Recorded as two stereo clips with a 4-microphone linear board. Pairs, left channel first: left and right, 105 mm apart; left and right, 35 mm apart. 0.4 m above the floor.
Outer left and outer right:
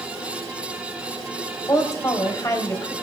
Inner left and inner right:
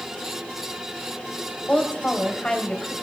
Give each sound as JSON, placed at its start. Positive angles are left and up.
{"t": 1.7, "sound": "a woman speaking", "side_deg": 30, "distance_m": 2.5}